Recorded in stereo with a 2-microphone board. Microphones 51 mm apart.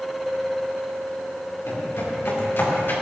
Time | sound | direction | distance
1.7 | footsteps | 55° left (ahead or behind) | 6.5 m